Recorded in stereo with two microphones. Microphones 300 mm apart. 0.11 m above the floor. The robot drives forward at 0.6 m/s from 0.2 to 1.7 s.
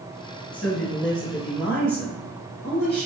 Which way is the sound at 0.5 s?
5° left (ahead or behind).